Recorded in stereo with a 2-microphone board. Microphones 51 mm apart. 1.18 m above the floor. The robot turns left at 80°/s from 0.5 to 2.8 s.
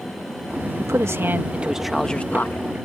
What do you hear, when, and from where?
0.8 s a man speaking: 90° right; by 2.7 s 120° left